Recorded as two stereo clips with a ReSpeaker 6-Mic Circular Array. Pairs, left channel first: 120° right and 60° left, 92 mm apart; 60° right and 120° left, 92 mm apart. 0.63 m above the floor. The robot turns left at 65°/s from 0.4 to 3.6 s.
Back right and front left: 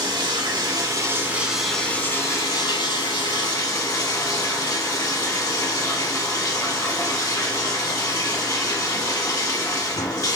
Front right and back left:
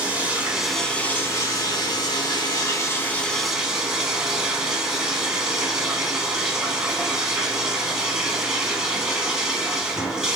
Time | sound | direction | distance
0.0 | running water | 50° left | 0.7 m